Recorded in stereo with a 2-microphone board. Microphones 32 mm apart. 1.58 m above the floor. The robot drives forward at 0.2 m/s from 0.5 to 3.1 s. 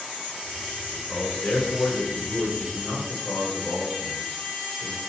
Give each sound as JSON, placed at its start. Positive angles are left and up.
{"t": 0.9, "sound": "a man speaking", "side_deg": 50, "distance_m": 5.0}